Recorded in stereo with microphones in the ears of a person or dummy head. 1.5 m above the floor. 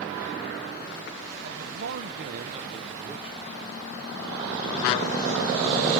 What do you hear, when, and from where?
1.4 s a man speaking: 80° right, 1.3 m; by 3.7 s centre (ahead or behind), 1.3 m